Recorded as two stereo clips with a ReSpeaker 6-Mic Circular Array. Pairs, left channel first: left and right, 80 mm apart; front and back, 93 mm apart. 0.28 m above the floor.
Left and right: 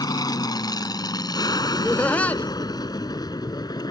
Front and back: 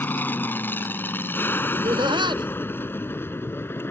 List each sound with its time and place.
0.0 s an aircraft: 65° left
1.7 s laughter: 160° left